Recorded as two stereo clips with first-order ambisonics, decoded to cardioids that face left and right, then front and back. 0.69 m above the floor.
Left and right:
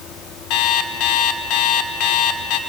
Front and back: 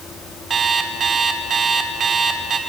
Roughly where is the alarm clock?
Behind left.